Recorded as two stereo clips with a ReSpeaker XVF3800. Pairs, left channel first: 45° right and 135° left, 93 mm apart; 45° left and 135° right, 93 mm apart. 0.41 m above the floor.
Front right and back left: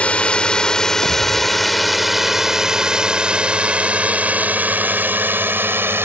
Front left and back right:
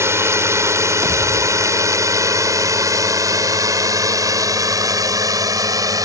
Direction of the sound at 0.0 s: 110° right.